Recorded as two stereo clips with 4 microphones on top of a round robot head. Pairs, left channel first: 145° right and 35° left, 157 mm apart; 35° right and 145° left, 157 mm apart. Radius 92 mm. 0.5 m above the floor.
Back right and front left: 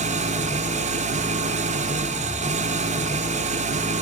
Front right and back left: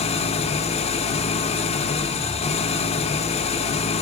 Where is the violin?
No violin in this recording.